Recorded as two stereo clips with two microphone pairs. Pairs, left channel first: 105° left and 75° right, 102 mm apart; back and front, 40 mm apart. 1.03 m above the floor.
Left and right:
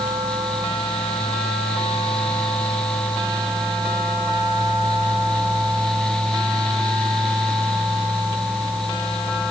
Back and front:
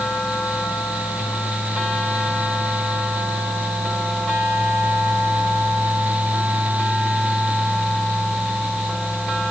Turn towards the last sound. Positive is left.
No sound to turn to.